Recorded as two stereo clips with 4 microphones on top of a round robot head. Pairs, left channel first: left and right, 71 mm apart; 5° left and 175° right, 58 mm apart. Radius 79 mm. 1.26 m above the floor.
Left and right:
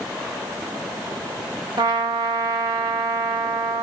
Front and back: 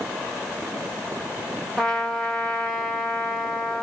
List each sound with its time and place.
1.8 s a trumpet: 75° right, 0.7 m